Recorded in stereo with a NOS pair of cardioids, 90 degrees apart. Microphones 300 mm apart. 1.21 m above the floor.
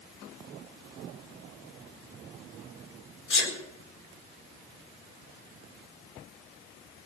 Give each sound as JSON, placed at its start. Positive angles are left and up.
{"t": 3.3, "sound": "a sneeze", "azimuth_deg": 40, "distance_m": 4.0}